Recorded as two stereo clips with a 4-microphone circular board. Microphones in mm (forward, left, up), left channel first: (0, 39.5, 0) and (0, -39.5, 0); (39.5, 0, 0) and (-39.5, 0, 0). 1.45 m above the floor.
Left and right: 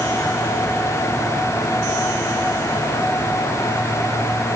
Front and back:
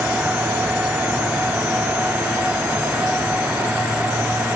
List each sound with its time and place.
Only background noise.